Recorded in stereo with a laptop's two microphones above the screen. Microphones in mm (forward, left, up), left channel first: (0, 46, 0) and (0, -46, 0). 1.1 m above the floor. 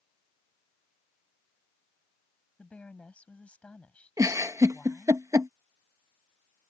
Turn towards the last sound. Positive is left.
turn(degrees=-35)  # may be behind; listen again after turning